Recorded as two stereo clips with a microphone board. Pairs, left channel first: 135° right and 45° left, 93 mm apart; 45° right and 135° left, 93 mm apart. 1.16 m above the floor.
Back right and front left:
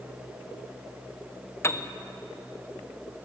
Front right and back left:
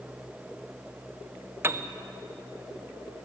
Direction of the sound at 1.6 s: 175° right.